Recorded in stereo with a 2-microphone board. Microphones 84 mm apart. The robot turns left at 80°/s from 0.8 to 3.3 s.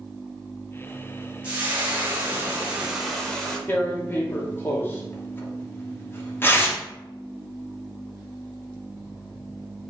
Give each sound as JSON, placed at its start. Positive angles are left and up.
{"t": 1.4, "sound": "frying", "side_deg": -15, "distance_m": 0.8}
{"t": 3.7, "sound": "tearing paper", "side_deg": 25, "distance_m": 0.7}